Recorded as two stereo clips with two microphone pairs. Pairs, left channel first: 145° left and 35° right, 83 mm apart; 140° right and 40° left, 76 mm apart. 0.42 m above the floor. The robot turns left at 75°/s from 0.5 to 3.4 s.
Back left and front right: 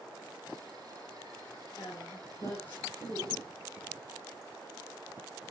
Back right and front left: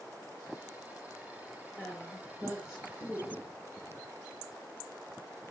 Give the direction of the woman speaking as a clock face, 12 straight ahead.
7 o'clock.